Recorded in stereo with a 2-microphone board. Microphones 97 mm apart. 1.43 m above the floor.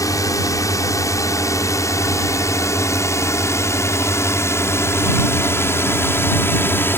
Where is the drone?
35° left (ahead or behind); by 7.0 s 25° left (ahead or behind).